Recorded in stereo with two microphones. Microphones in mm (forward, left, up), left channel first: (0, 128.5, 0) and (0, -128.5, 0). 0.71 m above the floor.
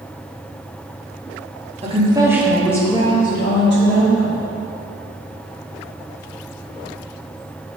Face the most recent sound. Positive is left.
turn(degrees=55)  # may be behind; listen again after turning